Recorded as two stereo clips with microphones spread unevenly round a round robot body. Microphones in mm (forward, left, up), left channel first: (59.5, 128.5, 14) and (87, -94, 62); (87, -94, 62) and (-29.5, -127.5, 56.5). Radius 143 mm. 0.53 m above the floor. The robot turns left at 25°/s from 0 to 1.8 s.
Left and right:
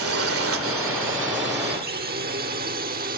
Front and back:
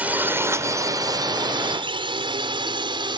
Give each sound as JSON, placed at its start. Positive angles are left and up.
{"t": 0.0, "sound": "a drone", "azimuth_deg": -90}